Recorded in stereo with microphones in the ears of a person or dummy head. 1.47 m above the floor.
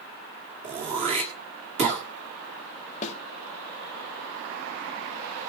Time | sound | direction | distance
0.6 | throat clearing | 30° right (ahead or behind) | 1.7 m
3.0 | a snare drum | 40° left (ahead or behind) | 1.4 m